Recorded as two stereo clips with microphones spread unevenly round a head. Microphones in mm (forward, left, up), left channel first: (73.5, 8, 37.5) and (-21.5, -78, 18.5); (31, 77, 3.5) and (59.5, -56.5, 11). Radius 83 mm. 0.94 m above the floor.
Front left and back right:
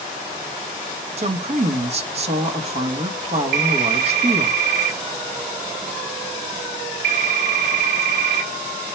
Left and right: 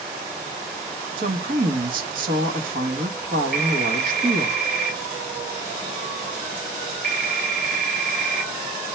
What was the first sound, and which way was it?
A woman speaking, 110° right.